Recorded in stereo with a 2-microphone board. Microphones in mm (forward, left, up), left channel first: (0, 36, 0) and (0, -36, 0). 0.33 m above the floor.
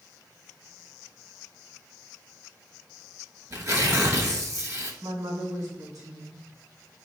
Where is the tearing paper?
45° right (ahead or behind), 0.8 m.